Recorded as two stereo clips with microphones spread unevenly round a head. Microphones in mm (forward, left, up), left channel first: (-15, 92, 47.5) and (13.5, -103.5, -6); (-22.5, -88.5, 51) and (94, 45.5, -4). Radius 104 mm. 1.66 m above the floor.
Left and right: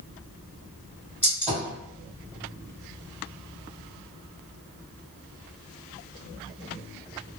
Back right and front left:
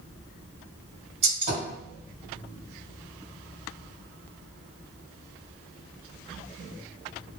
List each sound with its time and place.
1.2 s a gunshot: 30° left, 1.8 m